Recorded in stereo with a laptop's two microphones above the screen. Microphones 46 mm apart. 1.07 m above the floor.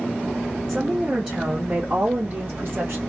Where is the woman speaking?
15° right (ahead or behind), 1.1 m; by 3.0 s 60° right (ahead or behind), 1.7 m.